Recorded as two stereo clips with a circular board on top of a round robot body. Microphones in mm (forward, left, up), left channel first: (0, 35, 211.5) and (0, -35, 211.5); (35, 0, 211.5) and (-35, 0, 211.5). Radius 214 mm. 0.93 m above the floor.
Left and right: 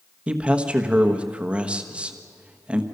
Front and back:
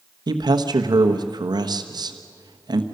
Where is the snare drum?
No snare drum in this recording.